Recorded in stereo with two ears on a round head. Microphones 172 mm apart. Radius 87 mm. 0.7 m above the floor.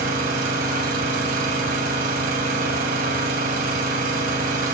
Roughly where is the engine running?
Right.